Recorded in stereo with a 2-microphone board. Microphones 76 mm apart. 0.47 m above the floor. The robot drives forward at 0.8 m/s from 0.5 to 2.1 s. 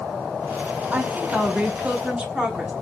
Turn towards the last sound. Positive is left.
turn(degrees=-15)  # may be behind; listen again after turning